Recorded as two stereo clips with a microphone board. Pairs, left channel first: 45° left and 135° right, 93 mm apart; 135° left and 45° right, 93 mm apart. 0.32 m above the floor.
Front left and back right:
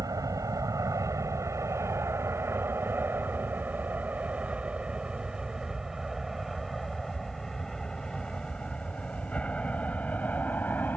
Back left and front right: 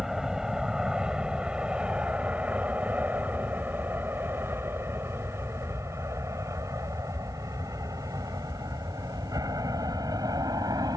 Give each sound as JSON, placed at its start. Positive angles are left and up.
{"t": 0.0, "sound": "an aircraft", "azimuth_deg": -125}